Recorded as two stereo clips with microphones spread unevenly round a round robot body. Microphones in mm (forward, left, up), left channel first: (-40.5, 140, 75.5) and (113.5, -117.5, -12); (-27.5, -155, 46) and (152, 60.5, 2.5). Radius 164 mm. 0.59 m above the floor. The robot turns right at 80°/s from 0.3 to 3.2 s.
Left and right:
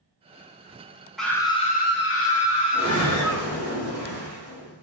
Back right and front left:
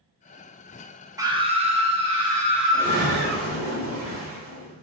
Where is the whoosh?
10° left, 1.6 m; by 4.8 s 45° left, 1.6 m.